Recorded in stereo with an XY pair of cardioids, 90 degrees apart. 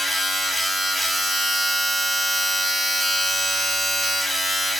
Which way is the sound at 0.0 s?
20° right.